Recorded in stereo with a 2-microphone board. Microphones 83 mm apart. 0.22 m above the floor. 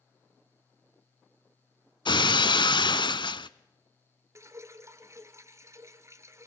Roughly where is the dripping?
Right.